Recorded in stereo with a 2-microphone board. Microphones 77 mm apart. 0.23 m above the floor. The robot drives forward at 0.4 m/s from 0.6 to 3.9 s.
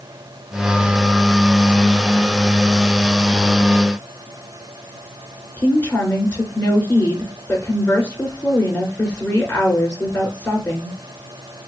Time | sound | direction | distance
5.6 | a woman speaking | 20° left (ahead or behind) | 3 m